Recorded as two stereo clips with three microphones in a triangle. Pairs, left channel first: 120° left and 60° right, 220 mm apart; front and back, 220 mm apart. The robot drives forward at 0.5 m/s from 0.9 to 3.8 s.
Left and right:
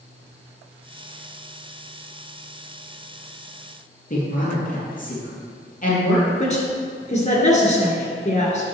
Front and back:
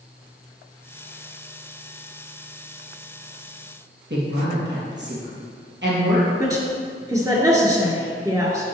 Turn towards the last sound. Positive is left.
turn(degrees=120)